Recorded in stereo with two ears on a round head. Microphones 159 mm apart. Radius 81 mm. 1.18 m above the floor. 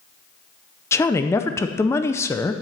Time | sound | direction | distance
0.9 | a woman speaking | 15° left (ahead or behind) | 0.5 m